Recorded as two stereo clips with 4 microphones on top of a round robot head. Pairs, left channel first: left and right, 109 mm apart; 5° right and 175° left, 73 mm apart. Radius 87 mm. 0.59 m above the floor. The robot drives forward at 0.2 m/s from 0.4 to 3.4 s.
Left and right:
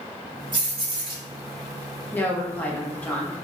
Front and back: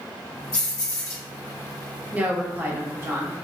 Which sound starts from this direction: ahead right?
Keys jangling, at 0.5 s.